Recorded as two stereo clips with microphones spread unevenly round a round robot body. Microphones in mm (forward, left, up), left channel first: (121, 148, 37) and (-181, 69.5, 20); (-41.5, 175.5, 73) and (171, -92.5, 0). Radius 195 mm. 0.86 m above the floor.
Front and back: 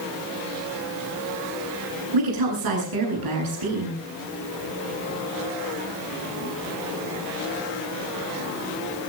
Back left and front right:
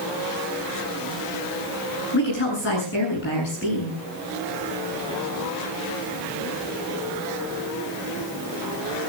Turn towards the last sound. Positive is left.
turn(degrees=-170)